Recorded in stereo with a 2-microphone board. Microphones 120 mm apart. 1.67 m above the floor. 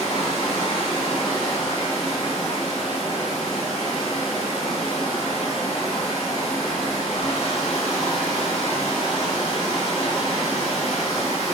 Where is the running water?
45° left (ahead or behind), 1.3 m.